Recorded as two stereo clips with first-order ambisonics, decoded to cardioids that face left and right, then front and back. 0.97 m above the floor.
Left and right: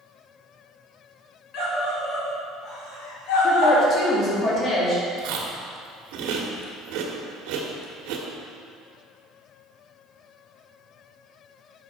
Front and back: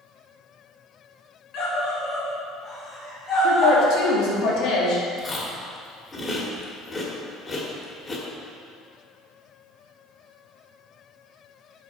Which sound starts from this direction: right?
Chewing, at 5.2 s.